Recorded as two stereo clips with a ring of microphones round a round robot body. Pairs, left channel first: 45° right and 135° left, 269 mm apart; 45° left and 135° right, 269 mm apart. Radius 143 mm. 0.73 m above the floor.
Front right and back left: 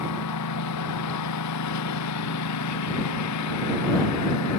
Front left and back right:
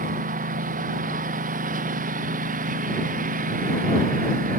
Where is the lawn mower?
75° right.